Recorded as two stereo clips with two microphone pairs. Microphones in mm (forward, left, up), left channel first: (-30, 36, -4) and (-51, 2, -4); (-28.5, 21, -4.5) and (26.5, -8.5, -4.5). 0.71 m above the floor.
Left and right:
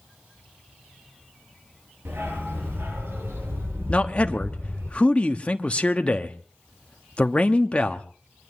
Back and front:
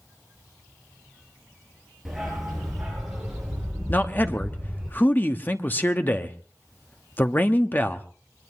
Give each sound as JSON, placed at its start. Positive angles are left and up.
{"t": 2.0, "sound": "a dog barking", "azimuth_deg": -115, "distance_m": 6.5}
{"t": 3.9, "sound": "a man speaking", "azimuth_deg": 105, "distance_m": 1.2}